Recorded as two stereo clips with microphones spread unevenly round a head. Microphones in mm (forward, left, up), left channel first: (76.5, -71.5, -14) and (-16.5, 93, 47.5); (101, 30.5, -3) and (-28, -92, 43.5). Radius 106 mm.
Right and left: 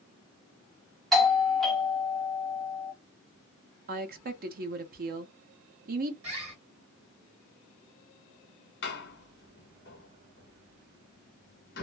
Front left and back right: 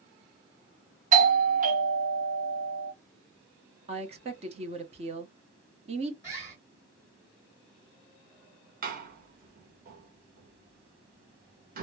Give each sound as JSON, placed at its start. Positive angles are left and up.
{"t": 1.1, "sound": "a doorbell", "azimuth_deg": -110, "distance_m": 0.9}
{"t": 3.9, "sound": "a woman speaking", "azimuth_deg": 165, "distance_m": 0.6}
{"t": 6.2, "sound": "a bird", "azimuth_deg": 160, "distance_m": 1.2}
{"t": 8.8, "sound": "a door slam", "azimuth_deg": -95, "distance_m": 1.0}